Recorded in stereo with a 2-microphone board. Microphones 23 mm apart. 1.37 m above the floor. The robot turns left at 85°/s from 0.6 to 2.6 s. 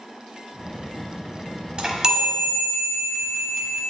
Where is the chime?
115° right, 1.1 m; by 3.8 s 175° left, 1.1 m.